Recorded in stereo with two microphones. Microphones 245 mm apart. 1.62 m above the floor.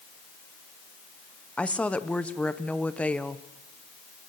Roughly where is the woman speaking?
Centre.